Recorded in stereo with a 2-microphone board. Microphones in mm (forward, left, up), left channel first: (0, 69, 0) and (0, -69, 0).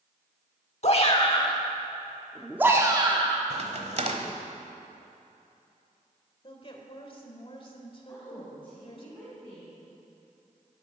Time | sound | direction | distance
0.8 | a shout | 50° left (ahead or behind) | 1.4 m
3.5 | a crack | 55° right (ahead or behind) | 1.1 m
6.4 | a woman speaking | 40° left (ahead or behind) | 1.7 m
8.1 | a woman speaking | 10° left (ahead or behind) | 4.5 m